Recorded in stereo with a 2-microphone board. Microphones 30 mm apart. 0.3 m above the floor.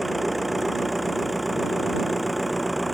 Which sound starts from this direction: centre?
An engine running, at 0.0 s.